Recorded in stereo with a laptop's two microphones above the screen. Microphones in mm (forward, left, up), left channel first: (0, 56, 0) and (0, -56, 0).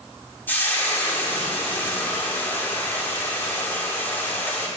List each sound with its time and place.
0.5 s frying: 15° left (ahead or behind), 2.5 m